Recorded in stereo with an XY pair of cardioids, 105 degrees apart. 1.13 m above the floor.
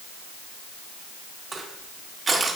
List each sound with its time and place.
1.5 s crushing: 30° right, 1.7 m